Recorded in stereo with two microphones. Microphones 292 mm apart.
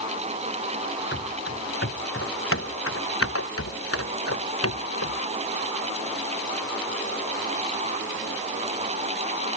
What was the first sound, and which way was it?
Running footsteps, 40° left (ahead or behind).